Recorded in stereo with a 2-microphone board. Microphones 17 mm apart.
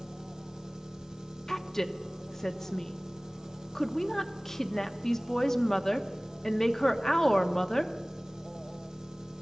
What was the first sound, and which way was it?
An engine running, 50° right (ahead or behind).